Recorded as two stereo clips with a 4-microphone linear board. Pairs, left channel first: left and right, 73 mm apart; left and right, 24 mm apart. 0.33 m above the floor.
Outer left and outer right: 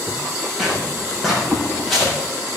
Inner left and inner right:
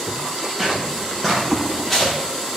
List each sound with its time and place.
0.6 s footsteps: 5° right (ahead or behind), 5.5 m; by 2.1 s centre (ahead or behind), 6.5 m